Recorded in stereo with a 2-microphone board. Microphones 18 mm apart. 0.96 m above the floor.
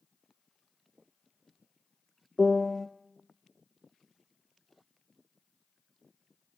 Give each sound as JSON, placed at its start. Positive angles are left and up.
{"t": 2.4, "sound": "a piano", "side_deg": 10, "distance_m": 0.5}